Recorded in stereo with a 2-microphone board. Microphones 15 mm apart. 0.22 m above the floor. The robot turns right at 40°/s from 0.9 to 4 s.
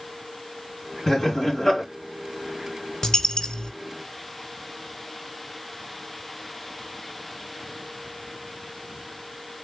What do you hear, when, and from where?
1.1 s laughter: 90° left, 2 m; by 1.8 s 120° left, 2 m
3.0 s a dropped coin: 45° left (ahead or behind), 0.9 m; by 3.7 s 70° left (ahead or behind), 0.9 m